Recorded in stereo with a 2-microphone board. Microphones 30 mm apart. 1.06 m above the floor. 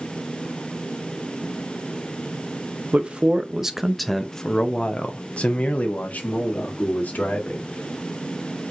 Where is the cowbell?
I don't hear a cowbell.